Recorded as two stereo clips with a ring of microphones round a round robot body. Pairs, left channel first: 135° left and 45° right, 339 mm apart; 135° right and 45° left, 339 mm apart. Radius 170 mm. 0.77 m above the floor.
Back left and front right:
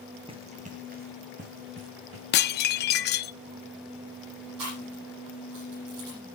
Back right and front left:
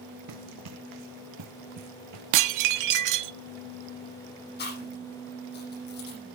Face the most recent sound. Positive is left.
turn(degrees=-75)